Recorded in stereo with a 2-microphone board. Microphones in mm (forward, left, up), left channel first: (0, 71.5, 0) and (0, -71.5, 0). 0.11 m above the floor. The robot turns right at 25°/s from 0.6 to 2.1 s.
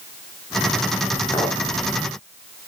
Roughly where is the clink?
Centre.